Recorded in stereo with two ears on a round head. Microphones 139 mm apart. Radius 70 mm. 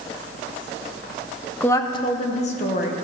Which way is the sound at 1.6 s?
10° left (ahead or behind).